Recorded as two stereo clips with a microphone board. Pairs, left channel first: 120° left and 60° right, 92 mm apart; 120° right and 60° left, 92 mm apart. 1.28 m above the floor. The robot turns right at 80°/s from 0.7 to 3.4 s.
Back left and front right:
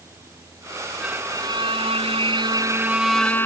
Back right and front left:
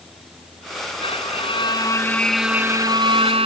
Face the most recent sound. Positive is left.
turn(degrees=55)